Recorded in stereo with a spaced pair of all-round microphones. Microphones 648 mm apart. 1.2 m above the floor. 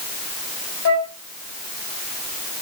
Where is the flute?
20° left (ahead or behind), 1.9 m.